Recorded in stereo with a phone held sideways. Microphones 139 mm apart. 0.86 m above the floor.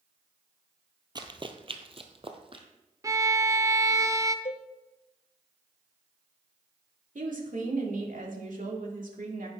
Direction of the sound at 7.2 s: 70° right (ahead or behind).